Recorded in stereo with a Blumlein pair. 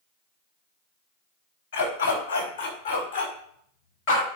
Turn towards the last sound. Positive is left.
turn(degrees=50)